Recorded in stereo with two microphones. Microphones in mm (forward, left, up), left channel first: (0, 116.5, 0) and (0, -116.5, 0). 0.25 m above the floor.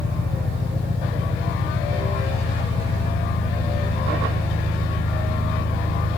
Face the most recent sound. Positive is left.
turn(degrees=25)  # may be behind; listen again after turning